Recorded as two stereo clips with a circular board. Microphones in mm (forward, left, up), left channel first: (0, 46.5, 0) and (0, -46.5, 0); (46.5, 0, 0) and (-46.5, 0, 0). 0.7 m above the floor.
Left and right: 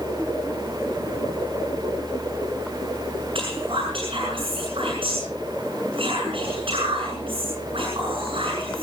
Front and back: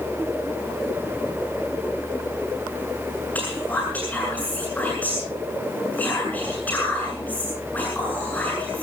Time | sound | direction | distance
3.4 | whispering | 70° right | 7 m